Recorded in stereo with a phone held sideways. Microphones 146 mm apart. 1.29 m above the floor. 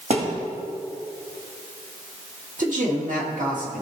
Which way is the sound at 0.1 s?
55° right (ahead or behind).